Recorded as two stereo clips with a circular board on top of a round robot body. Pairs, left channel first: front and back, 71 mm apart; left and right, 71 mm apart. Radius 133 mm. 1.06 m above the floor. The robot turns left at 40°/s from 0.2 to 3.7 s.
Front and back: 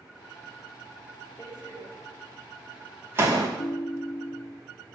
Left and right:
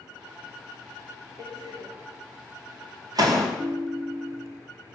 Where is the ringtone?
15° right, 0.9 m; by 4.6 s 20° right, 0.9 m.